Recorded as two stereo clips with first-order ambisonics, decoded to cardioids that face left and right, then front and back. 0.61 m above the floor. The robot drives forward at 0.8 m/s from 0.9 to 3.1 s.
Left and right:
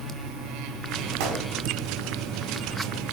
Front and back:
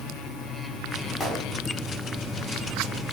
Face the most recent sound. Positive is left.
turn(degrees=-95)